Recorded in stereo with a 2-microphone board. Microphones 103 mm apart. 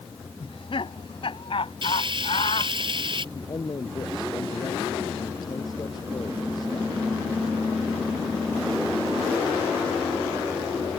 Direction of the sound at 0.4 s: 55° left (ahead or behind).